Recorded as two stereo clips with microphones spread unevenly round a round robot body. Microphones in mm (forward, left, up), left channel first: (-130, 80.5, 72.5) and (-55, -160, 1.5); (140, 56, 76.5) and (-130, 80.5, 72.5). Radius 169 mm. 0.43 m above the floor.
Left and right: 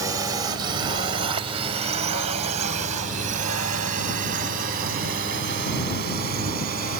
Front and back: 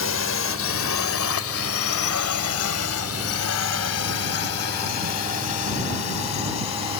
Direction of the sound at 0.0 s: 15° right.